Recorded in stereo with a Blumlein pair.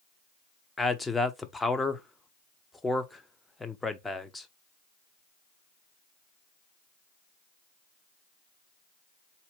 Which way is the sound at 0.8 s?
5° left.